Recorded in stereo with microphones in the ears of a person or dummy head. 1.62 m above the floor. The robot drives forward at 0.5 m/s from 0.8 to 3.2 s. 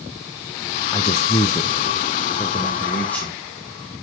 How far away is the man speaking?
About 0.5 m.